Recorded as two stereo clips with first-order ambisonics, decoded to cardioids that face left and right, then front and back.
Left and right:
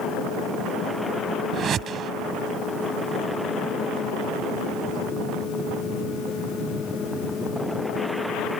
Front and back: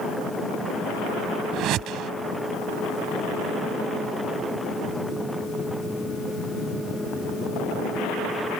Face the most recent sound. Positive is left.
turn(degrees=-145)